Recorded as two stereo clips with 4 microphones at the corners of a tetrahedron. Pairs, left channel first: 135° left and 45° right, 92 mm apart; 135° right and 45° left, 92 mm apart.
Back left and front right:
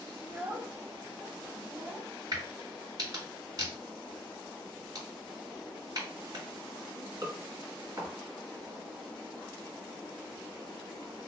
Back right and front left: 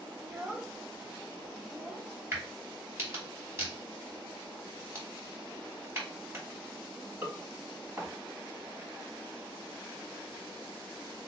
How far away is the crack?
About 2.5 m.